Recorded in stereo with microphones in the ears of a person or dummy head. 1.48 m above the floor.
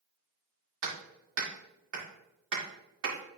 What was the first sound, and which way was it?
Hammering, 75° right (ahead or behind).